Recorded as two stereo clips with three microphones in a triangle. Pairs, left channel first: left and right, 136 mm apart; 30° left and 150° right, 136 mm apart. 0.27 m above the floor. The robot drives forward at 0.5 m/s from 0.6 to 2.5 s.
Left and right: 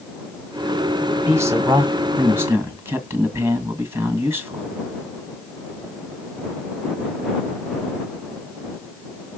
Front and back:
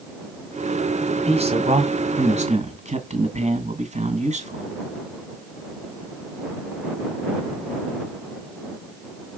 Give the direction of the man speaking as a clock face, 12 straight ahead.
5 o'clock.